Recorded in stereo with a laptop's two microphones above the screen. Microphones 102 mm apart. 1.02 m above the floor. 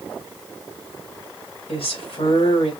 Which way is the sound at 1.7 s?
75° left (ahead or behind).